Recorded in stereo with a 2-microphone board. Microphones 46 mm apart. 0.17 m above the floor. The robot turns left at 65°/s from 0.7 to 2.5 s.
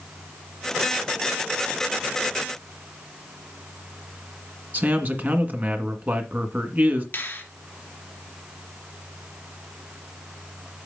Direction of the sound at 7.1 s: 50° left (ahead or behind).